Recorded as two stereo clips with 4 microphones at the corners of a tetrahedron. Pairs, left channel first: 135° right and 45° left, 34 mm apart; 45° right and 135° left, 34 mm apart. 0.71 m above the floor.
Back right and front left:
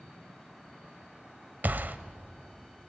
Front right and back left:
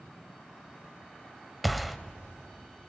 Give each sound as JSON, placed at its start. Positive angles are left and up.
{"t": 1.6, "sound": "a gunshot", "azimuth_deg": 45, "distance_m": 0.8}